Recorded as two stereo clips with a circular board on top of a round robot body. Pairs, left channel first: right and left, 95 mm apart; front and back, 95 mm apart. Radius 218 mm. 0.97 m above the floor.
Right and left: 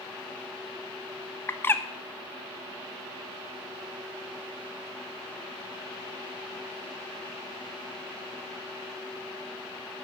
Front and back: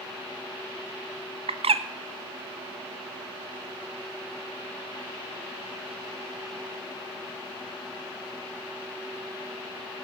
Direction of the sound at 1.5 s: 160° right.